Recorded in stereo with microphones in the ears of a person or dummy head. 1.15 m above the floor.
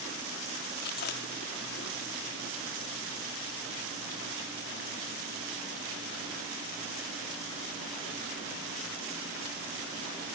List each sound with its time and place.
0.8 s chewing: 55° left (ahead or behind)